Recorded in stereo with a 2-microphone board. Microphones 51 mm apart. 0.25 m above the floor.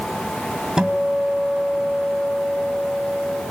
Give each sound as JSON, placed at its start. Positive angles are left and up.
{"t": 0.8, "sound": "a guitar", "side_deg": -15, "distance_m": 1.8}